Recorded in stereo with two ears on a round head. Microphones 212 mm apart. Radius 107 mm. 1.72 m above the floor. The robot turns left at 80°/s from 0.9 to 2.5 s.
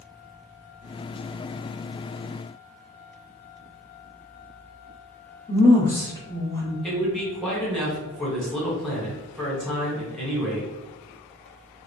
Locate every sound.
5.5 s a woman speaking: 15° left (ahead or behind), 0.8 m
6.8 s a man speaking: centre (ahead or behind), 1.1 m